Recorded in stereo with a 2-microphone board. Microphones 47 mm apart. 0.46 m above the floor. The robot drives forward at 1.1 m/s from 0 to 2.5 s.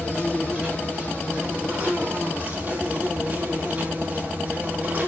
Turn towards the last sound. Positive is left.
turn(degrees=-30)  # may be behind; listen again after turning